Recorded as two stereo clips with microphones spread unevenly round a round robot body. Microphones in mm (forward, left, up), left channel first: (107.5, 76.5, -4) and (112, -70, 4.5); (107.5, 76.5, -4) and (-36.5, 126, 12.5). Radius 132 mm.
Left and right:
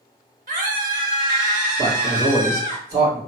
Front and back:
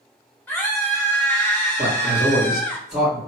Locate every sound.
0.5 s a scream: 95° right, 1.4 m
1.8 s a man speaking: 140° right, 1.5 m